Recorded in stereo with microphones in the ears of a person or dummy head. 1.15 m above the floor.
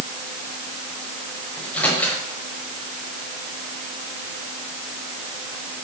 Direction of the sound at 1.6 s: 15° left (ahead or behind).